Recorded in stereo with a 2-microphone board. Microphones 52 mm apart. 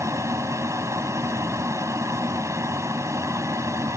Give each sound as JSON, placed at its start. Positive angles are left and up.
{"t": 0.0, "sound": "an aircraft", "side_deg": -70}